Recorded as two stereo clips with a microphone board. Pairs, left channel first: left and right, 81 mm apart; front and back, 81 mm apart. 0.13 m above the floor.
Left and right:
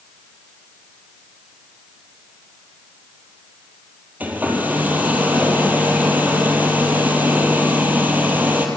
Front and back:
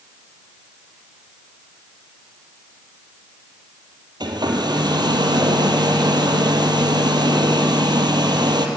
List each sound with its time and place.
4.2 s a hair dryer: 160° right, 2.5 m